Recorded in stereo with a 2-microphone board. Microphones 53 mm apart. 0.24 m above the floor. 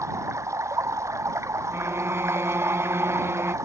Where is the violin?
50° right (ahead or behind).